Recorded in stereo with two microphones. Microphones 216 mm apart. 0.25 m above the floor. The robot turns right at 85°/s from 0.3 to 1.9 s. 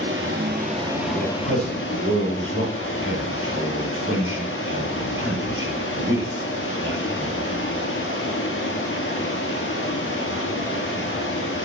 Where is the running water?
65° right, 2.5 m; by 11.7 s 70° left, 2.5 m.